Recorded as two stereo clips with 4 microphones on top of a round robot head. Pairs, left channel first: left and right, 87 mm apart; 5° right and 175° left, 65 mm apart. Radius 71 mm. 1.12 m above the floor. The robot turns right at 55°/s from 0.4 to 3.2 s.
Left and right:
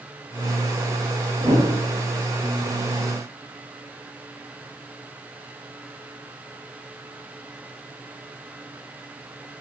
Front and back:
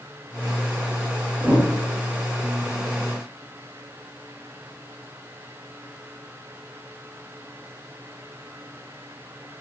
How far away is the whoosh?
About 5 m.